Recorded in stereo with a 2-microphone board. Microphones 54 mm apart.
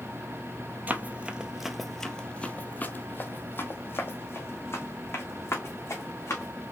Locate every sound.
0.9 s running footsteps: 35° right (ahead or behind), 0.7 m; by 6.5 s 55° left (ahead or behind), 2.5 m